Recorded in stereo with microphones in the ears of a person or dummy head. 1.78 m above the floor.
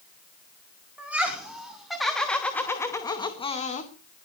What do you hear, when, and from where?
1.0 s laughter: 5° right (ahead or behind), 4.5 m; by 3.9 s 45° left (ahead or behind), 2 m